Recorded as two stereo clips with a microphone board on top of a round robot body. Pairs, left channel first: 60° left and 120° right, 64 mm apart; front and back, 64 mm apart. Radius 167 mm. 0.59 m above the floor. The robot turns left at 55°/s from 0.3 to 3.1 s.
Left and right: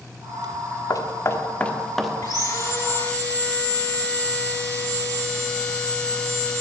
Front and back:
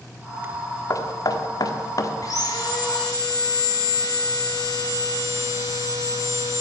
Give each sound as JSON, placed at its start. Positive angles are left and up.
{"t": 0.9, "sound": "knocking", "azimuth_deg": 35, "distance_m": 1.4}
{"t": 2.2, "sound": "sawing", "azimuth_deg": 40, "distance_m": 8.0}